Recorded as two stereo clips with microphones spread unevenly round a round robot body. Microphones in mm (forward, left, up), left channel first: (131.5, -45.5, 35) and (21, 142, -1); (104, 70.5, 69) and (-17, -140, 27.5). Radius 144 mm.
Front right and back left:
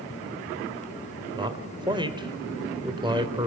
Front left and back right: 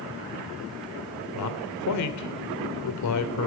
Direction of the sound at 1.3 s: 55° left.